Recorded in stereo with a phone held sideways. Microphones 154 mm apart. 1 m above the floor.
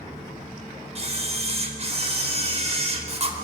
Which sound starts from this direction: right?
A camera shutter, at 0.9 s.